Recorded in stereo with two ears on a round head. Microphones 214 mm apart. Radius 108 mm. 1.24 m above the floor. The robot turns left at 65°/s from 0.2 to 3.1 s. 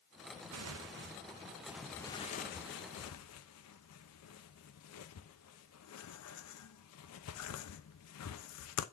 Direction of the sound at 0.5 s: 80° right.